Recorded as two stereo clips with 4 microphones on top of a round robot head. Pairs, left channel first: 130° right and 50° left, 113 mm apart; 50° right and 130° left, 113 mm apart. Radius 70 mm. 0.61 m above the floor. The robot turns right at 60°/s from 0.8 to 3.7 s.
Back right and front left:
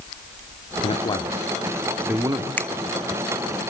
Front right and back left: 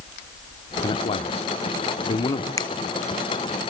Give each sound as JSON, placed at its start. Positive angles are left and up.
{"t": 0.8, "sound": "a man speaking", "azimuth_deg": -95, "distance_m": 1.5}
{"t": 2.6, "sound": "a finger snap", "azimuth_deg": -65, "distance_m": 1.0}